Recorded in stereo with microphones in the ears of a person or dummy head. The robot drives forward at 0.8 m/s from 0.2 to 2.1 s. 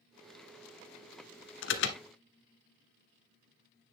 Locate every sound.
1.6 s an alarm: 65° left (ahead or behind), 1.2 m; by 2.0 s 60° left (ahead or behind), 1.2 m